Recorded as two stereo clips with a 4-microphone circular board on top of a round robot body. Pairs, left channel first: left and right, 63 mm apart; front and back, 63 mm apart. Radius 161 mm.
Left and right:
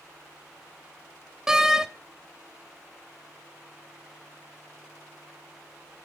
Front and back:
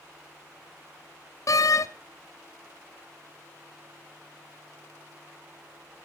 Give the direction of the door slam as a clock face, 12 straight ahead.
12 o'clock.